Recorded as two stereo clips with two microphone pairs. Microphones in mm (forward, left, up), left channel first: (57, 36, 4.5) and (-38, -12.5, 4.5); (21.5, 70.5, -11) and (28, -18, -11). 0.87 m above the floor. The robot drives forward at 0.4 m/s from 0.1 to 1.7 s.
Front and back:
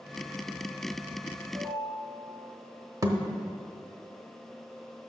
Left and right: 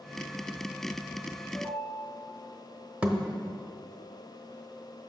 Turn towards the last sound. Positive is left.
turn(degrees=-150)